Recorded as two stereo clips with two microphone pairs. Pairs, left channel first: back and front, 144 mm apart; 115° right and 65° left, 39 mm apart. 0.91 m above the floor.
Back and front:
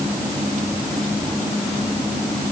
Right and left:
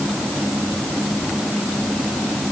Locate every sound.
Only background noise.